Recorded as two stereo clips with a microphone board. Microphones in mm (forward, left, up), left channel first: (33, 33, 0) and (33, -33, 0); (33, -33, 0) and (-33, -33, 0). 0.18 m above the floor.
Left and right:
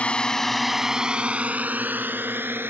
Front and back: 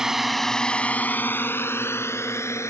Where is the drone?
115° left; by 2.7 s 40° right.